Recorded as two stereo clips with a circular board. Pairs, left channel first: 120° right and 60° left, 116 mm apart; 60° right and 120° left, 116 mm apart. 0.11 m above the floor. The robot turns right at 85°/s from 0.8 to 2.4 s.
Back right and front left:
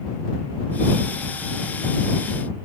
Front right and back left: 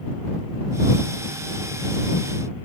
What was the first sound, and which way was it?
Only background noise.